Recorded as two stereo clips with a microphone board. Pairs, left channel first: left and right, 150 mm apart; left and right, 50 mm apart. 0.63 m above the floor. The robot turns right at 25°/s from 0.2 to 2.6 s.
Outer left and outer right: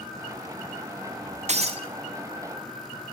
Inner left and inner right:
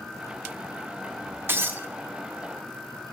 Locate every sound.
1.5 s breaking glass: 50° right (ahead or behind), 0.6 m; by 1.9 s 40° right (ahead or behind), 0.6 m